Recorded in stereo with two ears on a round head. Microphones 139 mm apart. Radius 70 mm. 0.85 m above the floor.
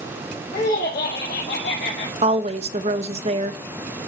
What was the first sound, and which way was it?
Laughter, 60° left (ahead or behind).